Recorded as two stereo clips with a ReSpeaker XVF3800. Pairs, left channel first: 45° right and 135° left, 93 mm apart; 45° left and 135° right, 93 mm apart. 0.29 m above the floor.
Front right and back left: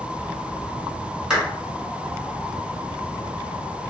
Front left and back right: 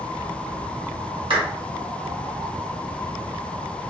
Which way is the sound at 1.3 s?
145° right.